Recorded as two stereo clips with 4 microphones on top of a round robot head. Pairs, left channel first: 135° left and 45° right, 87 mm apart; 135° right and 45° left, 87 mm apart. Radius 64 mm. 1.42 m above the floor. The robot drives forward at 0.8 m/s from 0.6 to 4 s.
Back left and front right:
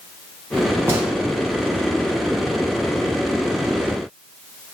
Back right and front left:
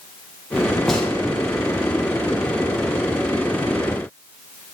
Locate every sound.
0.9 s a gunshot: 60° right, 0.5 m; by 1.1 s 130° right, 0.5 m